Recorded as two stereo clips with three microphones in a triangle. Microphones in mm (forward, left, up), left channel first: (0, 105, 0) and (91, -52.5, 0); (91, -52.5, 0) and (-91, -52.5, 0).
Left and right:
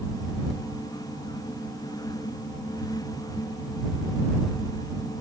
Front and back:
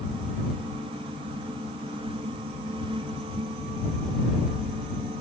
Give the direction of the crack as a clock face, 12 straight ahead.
I don't hear a crack.